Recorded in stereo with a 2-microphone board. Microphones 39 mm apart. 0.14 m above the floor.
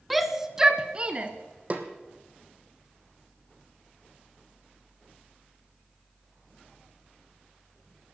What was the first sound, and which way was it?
A shout, centre (ahead or behind).